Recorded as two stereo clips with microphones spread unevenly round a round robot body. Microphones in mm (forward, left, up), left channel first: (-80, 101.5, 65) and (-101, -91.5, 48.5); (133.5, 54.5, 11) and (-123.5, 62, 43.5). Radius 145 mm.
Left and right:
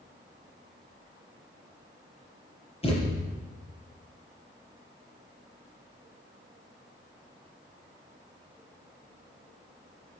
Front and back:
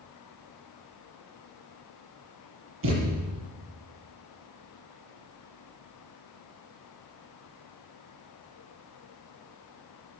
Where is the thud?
140° left, 6.5 m.